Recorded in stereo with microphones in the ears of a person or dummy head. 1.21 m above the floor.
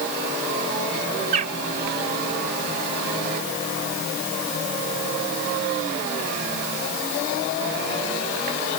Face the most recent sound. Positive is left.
turn(degrees=-50)  # may be behind; listen again after turning